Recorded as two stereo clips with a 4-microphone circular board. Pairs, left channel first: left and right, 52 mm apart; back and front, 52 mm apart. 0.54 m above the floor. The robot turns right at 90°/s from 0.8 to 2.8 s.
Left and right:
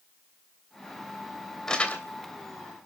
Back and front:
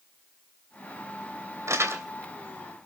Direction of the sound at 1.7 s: 10° left.